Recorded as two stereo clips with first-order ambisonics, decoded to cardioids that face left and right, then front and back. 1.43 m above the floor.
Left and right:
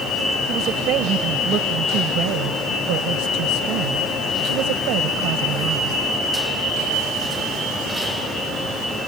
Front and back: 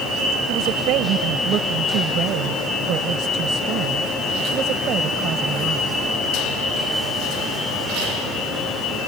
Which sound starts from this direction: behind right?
A woman speaking, at 0.5 s.